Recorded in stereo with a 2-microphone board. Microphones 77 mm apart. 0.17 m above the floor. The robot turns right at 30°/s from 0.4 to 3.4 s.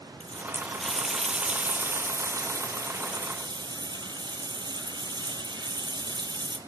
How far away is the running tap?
About 2.5 m.